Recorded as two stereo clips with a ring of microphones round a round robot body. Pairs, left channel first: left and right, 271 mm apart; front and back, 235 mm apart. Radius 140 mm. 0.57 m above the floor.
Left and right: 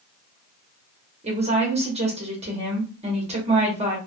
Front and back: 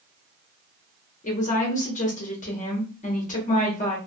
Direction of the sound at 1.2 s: 35° right.